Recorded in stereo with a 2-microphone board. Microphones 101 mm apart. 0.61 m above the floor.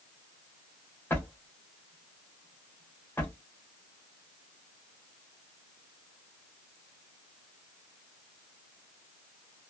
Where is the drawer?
20° left (ahead or behind), 1.3 m.